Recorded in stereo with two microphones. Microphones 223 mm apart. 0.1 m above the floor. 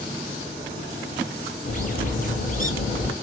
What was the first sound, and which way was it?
A bird, 40° left (ahead or behind).